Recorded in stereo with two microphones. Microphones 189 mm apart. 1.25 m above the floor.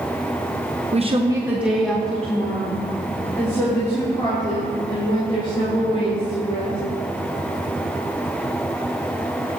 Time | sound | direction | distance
0.9 | a woman speaking | 40° right (ahead or behind) | 0.9 m